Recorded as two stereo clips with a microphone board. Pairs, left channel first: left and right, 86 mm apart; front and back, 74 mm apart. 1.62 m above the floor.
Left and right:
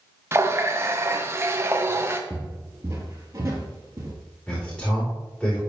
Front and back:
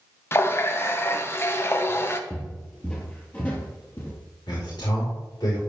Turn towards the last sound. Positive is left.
turn(degrees=10)